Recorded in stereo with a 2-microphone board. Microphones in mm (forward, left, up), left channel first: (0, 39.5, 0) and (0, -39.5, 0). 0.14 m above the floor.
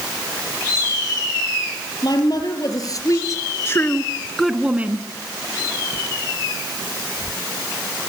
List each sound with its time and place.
2.0 s a woman speaking: 55° left (ahead or behind), 4.5 m; by 5.1 s 30° right (ahead or behind), 2.0 m